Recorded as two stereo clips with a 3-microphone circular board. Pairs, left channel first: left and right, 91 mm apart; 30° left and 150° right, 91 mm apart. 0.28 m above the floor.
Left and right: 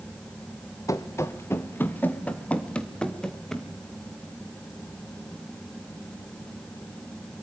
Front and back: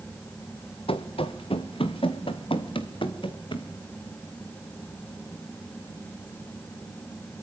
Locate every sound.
0.9 s running footsteps: 35° left, 2 m; by 3.7 s 5° left, 3.5 m